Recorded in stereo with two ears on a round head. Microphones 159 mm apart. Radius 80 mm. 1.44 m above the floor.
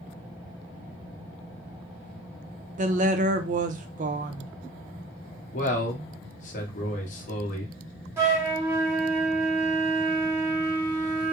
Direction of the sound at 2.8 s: 45° right (ahead or behind).